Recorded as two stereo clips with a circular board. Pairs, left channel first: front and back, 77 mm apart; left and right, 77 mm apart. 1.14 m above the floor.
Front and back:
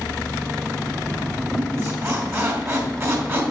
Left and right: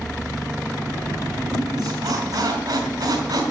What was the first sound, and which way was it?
A squeak, 125° right.